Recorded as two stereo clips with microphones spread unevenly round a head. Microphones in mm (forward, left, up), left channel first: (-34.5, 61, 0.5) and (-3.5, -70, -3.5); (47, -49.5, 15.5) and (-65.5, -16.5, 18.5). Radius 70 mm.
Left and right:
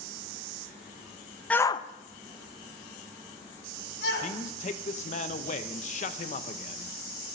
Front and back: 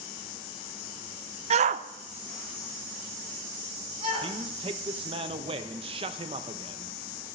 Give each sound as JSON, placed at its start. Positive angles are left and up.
{"t": 1.5, "sound": "a shout", "azimuth_deg": -175, "distance_m": 0.6}
{"t": 4.2, "sound": "a man speaking", "azimuth_deg": 125, "distance_m": 0.8}